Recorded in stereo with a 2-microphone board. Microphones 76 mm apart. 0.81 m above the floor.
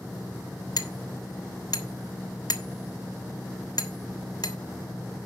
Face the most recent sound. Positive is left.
turn(degrees=60)  # may be behind; listen again after turning